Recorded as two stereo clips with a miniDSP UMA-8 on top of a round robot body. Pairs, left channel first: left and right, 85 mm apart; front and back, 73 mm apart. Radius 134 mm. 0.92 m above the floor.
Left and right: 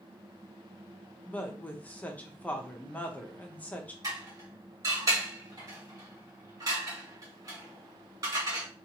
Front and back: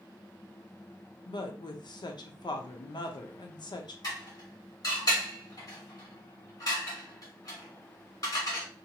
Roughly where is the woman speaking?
Ahead.